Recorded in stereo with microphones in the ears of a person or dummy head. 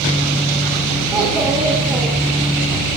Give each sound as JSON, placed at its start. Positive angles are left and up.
{"t": 1.1, "sound": "a child speaking", "side_deg": -15, "distance_m": 0.7}